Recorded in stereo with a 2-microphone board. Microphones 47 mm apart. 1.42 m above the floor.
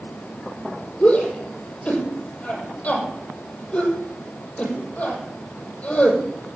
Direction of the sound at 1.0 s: 25° left (ahead or behind).